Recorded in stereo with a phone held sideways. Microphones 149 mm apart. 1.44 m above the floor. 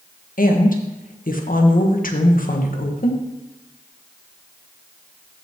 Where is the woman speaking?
70° left (ahead or behind), 1.1 m.